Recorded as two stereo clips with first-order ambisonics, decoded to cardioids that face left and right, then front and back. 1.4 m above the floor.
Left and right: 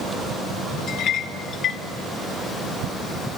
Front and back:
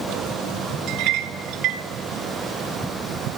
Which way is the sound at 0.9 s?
145° left.